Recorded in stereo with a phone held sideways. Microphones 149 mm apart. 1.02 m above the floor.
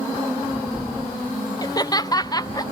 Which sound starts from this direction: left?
Laughter, at 1.6 s.